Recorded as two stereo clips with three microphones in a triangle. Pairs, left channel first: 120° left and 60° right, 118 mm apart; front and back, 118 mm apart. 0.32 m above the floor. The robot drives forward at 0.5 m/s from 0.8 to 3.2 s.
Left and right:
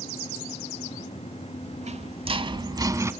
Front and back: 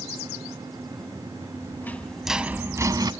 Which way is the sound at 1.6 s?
65° right.